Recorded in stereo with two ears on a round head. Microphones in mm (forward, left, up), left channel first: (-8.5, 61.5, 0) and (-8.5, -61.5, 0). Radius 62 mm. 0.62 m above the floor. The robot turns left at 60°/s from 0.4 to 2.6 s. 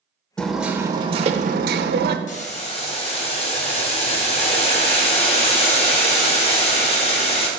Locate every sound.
0.4 s hammering: 5° left, 0.8 m; by 2.2 s 100° right, 0.8 m
2.3 s boiling: 55° left (ahead or behind), 1.2 m; by 7.5 s 45° left (ahead or behind), 1.2 m